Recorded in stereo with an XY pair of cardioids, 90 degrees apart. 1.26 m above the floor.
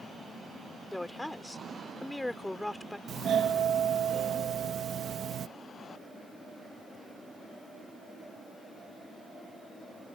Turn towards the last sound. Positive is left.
turn(degrees=-65)